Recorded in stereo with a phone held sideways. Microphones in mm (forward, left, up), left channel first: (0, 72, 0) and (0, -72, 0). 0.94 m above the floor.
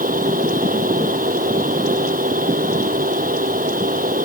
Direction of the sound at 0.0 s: 70° right (ahead or behind).